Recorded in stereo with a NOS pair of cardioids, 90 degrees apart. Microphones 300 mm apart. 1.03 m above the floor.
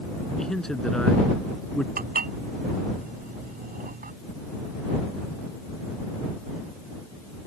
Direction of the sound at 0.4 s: Straight ahead.